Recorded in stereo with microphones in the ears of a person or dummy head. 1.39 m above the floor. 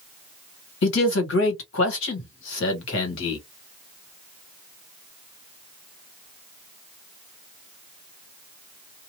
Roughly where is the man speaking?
Left.